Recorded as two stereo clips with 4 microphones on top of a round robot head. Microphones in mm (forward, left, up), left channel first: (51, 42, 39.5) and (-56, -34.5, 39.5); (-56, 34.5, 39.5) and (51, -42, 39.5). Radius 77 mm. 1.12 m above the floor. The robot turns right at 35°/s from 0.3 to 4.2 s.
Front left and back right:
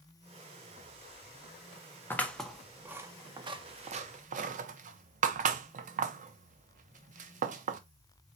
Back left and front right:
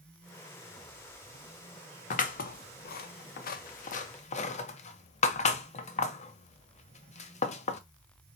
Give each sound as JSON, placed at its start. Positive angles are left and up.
{"t": 2.1, "sound": "scissors", "azimuth_deg": 110, "distance_m": 0.6}